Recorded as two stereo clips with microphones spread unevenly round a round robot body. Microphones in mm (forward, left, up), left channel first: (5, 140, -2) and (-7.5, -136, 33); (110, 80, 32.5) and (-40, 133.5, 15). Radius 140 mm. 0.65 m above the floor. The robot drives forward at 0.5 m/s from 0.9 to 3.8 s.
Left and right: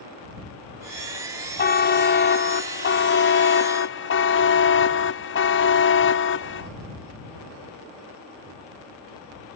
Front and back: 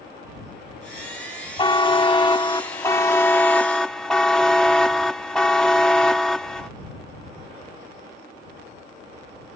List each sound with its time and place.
1.6 s a buzzer: 40° left; by 6.7 s 70° left